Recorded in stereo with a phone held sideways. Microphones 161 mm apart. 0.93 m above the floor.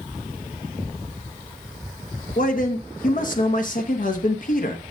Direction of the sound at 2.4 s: 60° left (ahead or behind).